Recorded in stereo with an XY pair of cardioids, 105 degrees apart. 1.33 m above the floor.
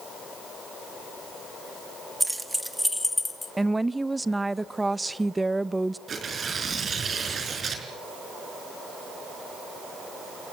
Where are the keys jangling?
10° right, 1.4 m; by 3.5 s 25° left, 1.9 m.